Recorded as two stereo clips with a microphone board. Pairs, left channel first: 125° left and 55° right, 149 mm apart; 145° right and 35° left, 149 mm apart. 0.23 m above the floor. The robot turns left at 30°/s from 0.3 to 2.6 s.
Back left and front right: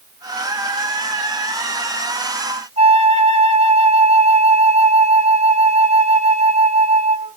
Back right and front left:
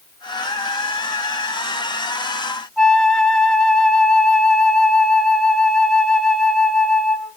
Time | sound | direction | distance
2.8 | a flute | 60° right | 1.1 m